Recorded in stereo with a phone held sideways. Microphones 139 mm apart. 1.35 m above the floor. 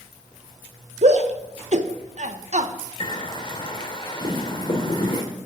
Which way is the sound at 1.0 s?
60° right (ahead or behind).